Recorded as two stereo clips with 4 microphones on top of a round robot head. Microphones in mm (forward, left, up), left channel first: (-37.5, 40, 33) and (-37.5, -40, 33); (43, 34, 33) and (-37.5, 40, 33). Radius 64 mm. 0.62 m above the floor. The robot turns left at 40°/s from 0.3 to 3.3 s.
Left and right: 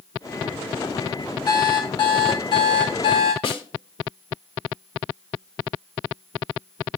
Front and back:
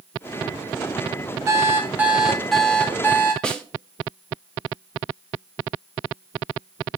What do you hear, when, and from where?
1.5 s an alarm clock: 125° left, 2.5 m; by 3.3 s 50° left, 2.5 m
3.4 s a snare drum: 75° left, 1.5 m